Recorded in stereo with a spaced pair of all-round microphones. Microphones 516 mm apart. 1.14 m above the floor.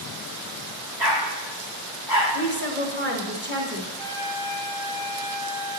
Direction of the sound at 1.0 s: 50° right (ahead or behind).